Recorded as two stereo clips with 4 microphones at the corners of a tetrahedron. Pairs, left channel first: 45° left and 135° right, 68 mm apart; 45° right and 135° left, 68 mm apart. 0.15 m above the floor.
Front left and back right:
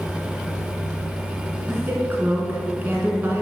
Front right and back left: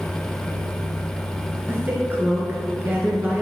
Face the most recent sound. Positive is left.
turn(degrees=-175)